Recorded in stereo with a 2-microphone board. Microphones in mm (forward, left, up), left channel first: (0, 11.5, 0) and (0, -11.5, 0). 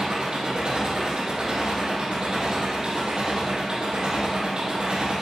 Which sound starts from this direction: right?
An engine running, at 0.0 s.